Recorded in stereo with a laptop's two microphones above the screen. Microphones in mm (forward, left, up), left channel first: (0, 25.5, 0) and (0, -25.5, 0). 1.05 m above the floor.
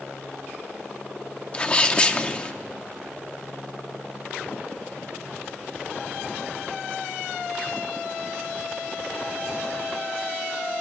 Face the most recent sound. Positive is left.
turn(degrees=20)  # may be behind; listen again after turning